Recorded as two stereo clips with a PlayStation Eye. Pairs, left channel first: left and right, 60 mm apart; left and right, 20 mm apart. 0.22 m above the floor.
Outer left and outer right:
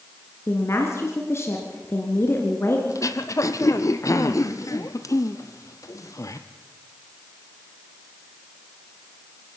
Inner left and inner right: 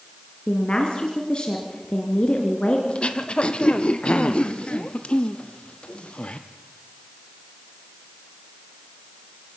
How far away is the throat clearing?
About 1.1 m.